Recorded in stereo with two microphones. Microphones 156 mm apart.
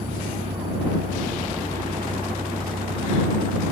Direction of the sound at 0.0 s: 65° right (ahead or behind).